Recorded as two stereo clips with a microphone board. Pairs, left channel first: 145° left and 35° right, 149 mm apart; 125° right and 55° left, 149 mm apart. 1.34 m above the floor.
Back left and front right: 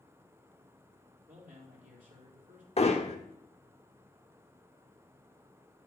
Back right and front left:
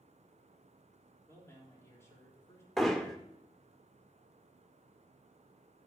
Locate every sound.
1.3 s a man speaking: 55° right, 3.5 m
2.8 s hammering: 150° left, 1.2 m